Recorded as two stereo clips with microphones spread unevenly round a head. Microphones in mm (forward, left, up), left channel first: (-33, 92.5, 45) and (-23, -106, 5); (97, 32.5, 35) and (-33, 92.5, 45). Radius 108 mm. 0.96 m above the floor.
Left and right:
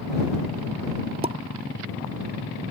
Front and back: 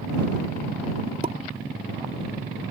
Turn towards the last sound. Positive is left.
turn(degrees=-145)